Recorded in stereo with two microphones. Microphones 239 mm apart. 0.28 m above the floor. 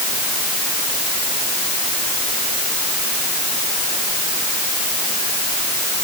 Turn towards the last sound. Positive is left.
No sound to turn to.